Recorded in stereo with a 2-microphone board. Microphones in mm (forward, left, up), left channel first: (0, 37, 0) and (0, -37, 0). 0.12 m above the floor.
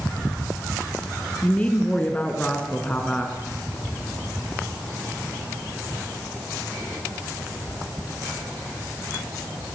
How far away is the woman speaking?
About 1.4 m.